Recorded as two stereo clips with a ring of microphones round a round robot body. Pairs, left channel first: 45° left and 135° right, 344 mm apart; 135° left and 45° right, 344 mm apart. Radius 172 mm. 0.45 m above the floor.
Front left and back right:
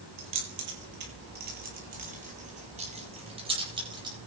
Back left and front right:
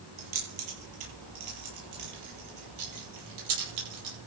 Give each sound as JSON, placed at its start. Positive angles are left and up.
{"t": 0.2, "sound": "keys jangling", "azimuth_deg": -80, "distance_m": 8.5}